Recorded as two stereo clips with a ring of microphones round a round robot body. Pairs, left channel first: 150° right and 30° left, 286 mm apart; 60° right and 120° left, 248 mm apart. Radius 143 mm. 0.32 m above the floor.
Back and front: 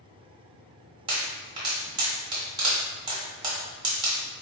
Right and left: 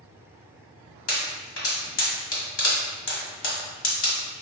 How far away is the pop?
About 1.5 m.